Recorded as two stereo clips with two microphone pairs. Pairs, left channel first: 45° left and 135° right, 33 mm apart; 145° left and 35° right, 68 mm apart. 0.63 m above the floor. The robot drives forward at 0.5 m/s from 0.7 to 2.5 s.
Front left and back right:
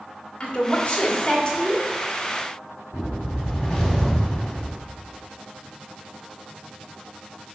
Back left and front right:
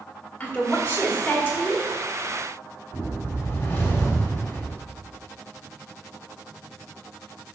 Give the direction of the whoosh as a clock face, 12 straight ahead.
8 o'clock.